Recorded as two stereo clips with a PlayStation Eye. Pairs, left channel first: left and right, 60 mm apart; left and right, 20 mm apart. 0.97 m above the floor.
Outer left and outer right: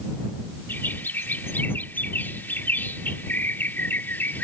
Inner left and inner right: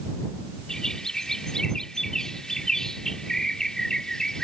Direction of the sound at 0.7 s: 35° left (ahead or behind).